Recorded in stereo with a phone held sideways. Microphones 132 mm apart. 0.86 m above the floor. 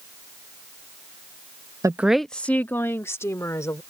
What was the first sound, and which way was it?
A woman speaking, 25° right (ahead or behind).